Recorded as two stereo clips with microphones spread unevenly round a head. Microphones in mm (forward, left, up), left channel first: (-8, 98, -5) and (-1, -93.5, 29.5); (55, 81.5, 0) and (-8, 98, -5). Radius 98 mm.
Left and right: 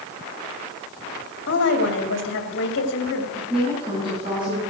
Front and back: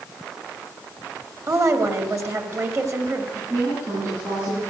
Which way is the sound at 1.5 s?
125° left.